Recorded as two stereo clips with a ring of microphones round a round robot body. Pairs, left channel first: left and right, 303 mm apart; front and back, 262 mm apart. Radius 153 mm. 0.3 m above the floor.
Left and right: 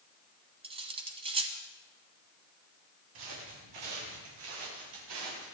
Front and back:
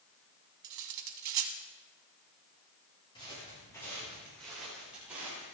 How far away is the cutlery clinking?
About 1.3 m.